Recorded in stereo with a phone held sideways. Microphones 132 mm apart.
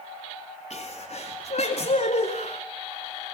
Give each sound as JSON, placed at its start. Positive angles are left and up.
{"t": 0.7, "sound": "a sneeze", "side_deg": 55, "distance_m": 3.0}